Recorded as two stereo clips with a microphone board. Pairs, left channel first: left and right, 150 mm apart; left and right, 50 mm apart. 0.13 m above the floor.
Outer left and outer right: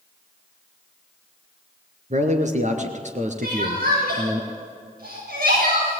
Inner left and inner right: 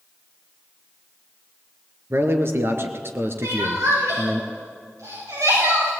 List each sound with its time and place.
2.1 s a man speaking: 55° right (ahead or behind), 2.5 m
3.4 s crying: 80° right, 10 m